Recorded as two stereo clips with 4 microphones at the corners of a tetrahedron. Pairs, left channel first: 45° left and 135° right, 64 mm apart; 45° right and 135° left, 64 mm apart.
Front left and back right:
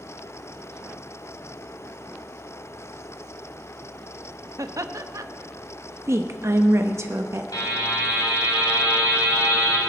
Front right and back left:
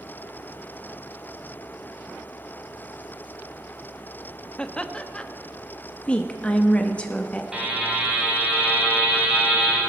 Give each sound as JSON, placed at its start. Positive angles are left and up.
{"t": 4.6, "sound": "laughter", "azimuth_deg": -115, "distance_m": 0.7}
{"t": 6.1, "sound": "a woman speaking", "azimuth_deg": -110, "distance_m": 0.6}
{"t": 7.5, "sound": "a buzzer", "azimuth_deg": 60, "distance_m": 4.0}